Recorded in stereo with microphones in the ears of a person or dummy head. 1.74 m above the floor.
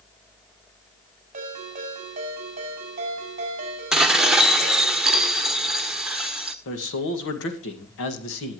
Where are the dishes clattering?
5° right (ahead or behind), 1.0 m.